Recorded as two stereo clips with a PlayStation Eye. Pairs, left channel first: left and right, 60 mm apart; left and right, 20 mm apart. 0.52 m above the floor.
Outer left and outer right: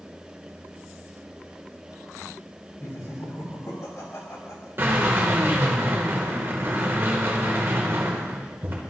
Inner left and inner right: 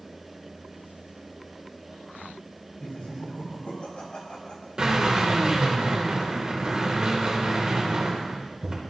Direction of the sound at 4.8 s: 40° right (ahead or behind).